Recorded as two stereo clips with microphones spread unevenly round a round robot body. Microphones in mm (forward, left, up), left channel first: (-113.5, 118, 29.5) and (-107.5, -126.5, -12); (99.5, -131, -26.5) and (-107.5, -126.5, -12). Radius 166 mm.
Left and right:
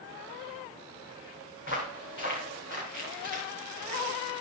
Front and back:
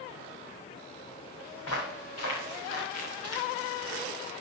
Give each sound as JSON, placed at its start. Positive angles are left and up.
{"t": 1.6, "sound": "footsteps", "azimuth_deg": 35, "distance_m": 3.5}